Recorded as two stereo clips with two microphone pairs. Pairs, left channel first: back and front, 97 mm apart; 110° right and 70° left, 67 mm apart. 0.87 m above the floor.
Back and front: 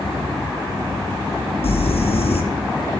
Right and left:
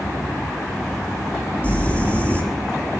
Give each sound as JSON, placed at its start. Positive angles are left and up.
{"t": 1.6, "sound": "crumpling", "azimuth_deg": 180, "distance_m": 4.0}